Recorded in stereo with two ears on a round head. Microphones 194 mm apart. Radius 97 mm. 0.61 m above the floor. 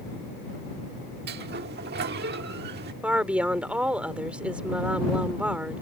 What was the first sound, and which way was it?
A sliding door, 50° right (ahead or behind).